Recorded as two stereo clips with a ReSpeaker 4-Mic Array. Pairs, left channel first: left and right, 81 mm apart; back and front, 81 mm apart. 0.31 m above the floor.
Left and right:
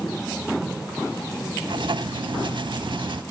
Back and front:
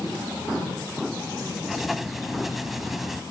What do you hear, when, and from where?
1.6 s writing: 85° right, 0.6 m